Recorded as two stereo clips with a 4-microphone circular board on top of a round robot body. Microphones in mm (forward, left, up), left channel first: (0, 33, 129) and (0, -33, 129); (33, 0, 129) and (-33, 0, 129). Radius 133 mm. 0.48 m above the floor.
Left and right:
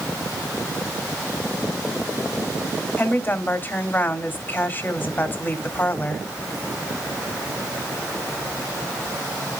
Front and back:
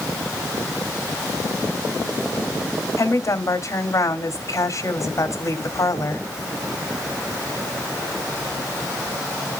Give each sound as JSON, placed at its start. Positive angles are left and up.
{"t": 3.0, "sound": "a woman speaking", "azimuth_deg": 35, "distance_m": 2.0}